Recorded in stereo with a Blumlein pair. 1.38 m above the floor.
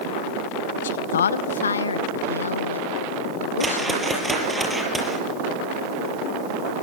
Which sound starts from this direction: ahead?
A whoosh, at 3.6 s.